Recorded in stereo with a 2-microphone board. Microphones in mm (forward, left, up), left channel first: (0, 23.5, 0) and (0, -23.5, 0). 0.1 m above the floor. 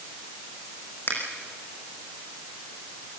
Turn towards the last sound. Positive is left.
turn(degrees=45)  # may be behind; listen again after turning